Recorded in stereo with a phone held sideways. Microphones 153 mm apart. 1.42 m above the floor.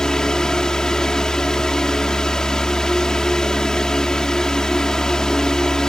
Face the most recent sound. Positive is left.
turn(degrees=5)  # may be behind; listen again after turning